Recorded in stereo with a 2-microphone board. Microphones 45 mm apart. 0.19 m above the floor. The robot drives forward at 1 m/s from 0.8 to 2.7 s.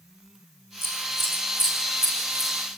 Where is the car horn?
I don't hear a car horn.